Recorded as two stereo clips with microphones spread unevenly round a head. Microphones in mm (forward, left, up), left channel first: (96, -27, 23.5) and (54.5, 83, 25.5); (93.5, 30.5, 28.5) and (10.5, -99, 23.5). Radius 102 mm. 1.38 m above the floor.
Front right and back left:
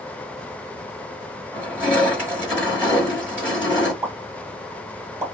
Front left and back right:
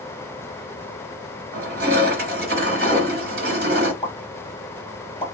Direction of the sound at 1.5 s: 170° right.